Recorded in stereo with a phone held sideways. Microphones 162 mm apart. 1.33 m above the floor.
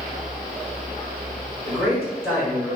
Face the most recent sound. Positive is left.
turn(degrees=-15)  # may be behind; listen again after turning